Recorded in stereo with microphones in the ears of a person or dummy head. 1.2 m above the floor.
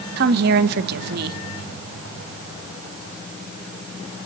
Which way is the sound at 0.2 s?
60° right (ahead or behind).